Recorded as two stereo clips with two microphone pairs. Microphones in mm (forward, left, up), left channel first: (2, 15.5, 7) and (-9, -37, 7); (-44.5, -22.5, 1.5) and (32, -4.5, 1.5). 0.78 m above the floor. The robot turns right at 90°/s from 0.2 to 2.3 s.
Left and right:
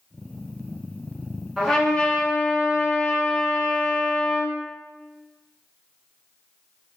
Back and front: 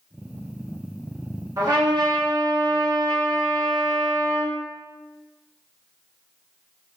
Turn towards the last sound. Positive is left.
turn(degrees=40)